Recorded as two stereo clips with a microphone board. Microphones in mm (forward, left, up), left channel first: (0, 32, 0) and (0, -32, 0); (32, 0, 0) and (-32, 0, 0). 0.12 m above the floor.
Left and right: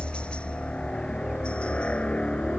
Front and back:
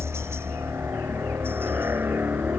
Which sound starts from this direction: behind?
A helicopter, at 0.0 s.